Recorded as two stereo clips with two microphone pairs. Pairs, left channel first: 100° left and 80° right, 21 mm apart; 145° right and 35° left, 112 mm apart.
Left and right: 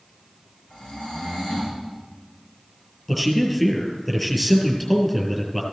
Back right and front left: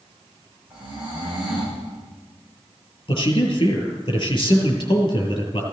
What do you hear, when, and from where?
0.7 s snoring: 115° left, 6.5 m
3.1 s a man speaking: straight behind, 3 m